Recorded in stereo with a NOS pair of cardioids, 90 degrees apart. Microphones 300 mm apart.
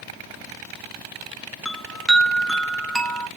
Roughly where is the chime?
Ahead.